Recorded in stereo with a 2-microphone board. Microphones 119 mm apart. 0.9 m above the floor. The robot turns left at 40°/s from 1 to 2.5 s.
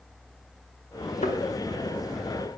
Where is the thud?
70° left (ahead or behind), 1.2 m.